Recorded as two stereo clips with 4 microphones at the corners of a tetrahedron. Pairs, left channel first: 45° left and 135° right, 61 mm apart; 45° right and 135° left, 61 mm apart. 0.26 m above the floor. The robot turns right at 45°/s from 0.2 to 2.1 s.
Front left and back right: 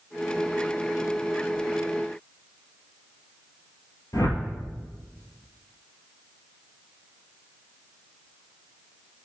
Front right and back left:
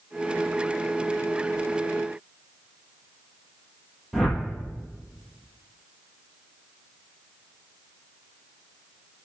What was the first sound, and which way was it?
A whoosh, 50° left.